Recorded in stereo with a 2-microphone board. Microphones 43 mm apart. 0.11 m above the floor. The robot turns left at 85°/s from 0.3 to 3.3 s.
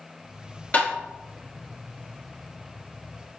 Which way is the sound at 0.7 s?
35° left (ahead or behind).